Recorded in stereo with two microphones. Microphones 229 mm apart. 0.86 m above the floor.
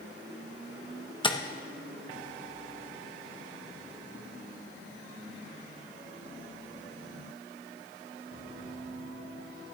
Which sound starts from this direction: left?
Tapping, at 1.2 s.